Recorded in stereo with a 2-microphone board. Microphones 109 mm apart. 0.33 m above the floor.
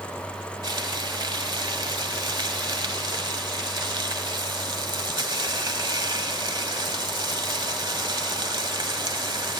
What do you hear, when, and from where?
0.6 s frying: 45° right (ahead or behind), 1.3 m